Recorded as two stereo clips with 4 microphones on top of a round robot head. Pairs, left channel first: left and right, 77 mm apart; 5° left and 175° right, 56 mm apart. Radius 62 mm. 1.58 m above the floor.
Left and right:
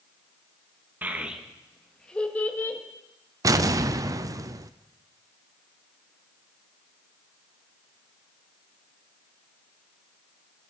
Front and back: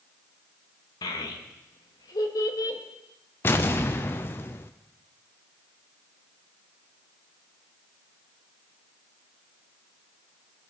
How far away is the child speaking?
About 1.6 m.